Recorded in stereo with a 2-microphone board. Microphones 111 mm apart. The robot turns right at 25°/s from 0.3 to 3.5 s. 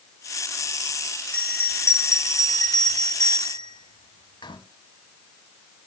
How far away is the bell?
About 1.4 m.